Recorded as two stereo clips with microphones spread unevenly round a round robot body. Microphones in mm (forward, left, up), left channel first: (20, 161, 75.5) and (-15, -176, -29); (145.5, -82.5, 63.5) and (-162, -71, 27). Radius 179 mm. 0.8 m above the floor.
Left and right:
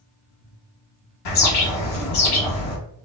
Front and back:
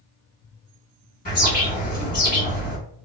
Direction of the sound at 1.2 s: 65° left.